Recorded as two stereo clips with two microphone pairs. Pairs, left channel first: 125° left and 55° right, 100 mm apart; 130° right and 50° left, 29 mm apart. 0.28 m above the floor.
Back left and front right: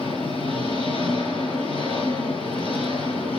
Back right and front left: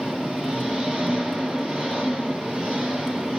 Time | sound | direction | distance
0.0 | an engine running | 100° left | 4.5 m